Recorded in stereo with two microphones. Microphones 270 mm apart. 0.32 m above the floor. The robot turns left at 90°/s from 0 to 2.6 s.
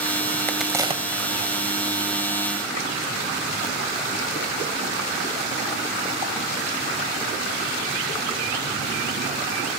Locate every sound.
0.5 s a crack: 10° left (ahead or behind), 1.8 m; by 1.3 s 40° right (ahead or behind), 1.8 m